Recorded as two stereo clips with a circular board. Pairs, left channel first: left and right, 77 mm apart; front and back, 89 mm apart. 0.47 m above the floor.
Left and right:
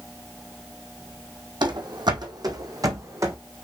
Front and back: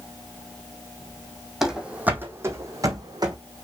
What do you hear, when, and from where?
1.6 s running footsteps: 95° right, 1.4 m; by 3.4 s 140° right, 1.8 m